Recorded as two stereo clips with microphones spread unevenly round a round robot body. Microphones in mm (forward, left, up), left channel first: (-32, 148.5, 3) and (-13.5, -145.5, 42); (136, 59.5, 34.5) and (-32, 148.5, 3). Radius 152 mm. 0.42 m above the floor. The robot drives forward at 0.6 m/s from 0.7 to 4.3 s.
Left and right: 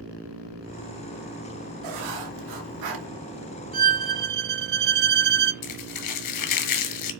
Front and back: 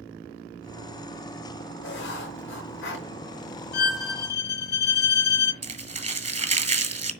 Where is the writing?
65° right, 4.5 m; by 3.1 s 75° right, 4.5 m.